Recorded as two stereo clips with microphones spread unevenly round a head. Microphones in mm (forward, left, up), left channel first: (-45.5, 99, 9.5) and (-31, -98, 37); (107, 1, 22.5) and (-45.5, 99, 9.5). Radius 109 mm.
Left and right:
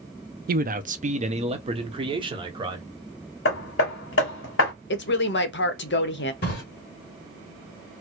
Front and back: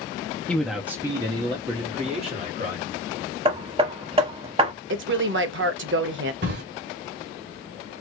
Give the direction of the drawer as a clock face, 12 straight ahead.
8 o'clock.